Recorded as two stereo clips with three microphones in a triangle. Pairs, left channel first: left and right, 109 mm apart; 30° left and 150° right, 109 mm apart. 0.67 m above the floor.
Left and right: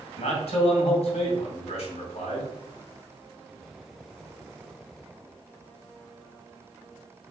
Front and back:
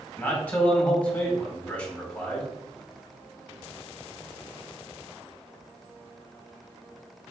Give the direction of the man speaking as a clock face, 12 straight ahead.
9 o'clock.